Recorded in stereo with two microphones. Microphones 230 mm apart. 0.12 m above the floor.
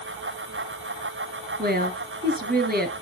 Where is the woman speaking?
40° right (ahead or behind), 2 m.